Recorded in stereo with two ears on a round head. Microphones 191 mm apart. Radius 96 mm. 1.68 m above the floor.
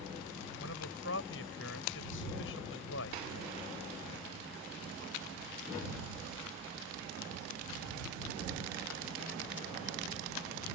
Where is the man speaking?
60° left (ahead or behind).